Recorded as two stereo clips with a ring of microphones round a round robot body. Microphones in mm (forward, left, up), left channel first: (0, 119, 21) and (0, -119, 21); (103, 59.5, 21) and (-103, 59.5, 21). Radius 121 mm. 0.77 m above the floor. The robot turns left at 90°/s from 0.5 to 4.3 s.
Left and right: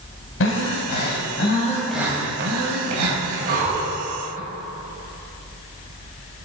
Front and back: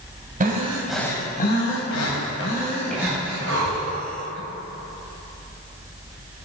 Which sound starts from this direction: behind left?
Breathing, at 0.4 s.